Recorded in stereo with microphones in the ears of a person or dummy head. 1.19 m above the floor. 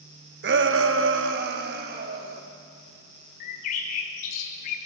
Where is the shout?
55° right (ahead or behind), 1.3 m.